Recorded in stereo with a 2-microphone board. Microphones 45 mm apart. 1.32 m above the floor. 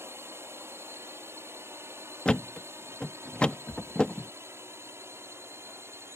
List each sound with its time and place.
0.0 s a drone: 65° right (ahead or behind)
2.2 s a thud: 20° left (ahead or behind)